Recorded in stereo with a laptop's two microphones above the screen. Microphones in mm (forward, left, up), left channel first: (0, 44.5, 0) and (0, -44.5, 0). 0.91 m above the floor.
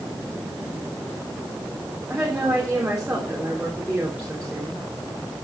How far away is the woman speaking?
About 3 m.